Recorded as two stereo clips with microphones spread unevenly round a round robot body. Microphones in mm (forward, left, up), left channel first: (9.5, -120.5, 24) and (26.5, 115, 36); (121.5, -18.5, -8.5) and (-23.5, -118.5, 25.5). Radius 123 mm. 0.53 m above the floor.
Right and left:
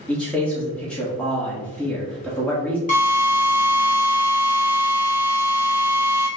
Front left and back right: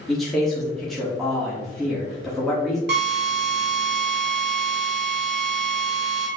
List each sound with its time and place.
0.1 s a man speaking: 25° right, 1.2 m
2.9 s a drill: 140° right, 1.5 m